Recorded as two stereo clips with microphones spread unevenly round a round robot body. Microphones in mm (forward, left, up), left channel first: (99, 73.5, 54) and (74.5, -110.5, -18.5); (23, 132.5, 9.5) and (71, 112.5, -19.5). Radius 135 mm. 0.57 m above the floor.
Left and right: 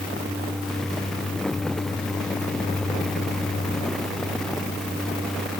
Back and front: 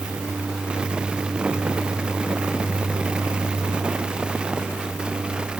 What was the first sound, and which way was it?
Only background noise.